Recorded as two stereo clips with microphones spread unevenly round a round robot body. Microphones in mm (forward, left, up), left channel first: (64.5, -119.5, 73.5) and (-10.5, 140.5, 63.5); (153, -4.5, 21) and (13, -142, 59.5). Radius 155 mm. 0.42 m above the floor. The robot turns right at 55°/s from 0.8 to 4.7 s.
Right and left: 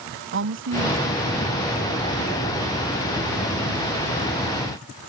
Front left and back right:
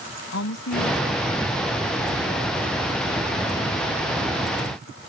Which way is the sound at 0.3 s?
65° left.